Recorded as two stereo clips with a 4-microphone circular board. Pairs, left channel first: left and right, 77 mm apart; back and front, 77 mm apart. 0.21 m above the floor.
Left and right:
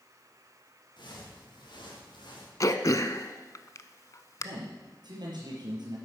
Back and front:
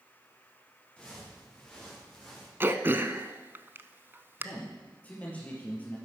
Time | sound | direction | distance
1.0 | footsteps | 100° left | 6 m
2.6 | throat clearing | 55° left | 0.7 m
4.4 | a man speaking | 110° right | 4 m